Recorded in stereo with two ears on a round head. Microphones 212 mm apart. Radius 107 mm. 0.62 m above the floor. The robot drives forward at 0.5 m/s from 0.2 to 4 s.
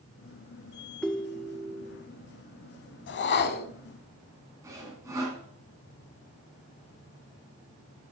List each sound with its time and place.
1.0 s a ringtone: 5° left (ahead or behind), 0.6 m; by 2.0 s centre (ahead or behind), 1.1 m
3.1 s a whoosh: 50° left (ahead or behind), 0.7 m; by 3.7 s 40° left (ahead or behind), 0.9 m
4.6 s sawing: 15° right (ahead or behind), 3 m